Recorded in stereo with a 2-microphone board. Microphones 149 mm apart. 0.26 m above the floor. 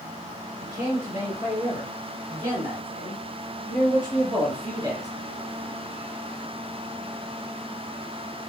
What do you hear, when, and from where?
0.6 s a man speaking: 30° right (ahead or behind), 3 m